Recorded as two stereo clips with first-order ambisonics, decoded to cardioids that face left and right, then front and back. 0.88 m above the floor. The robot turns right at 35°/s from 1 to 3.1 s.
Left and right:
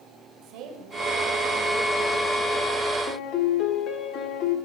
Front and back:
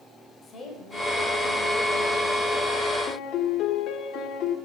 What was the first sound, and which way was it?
A woman speaking, 65° right.